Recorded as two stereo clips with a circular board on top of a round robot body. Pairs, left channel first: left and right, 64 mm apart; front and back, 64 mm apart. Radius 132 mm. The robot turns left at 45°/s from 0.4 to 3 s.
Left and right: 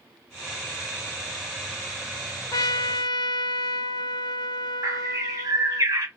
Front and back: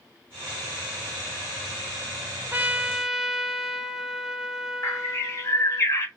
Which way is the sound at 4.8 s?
50° right.